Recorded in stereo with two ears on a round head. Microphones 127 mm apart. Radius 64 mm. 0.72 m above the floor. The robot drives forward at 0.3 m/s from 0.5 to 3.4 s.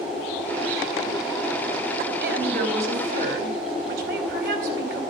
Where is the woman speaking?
80° right, 4.5 m.